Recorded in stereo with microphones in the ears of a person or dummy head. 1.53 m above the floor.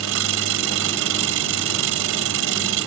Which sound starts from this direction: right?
An engine running, at 0.0 s.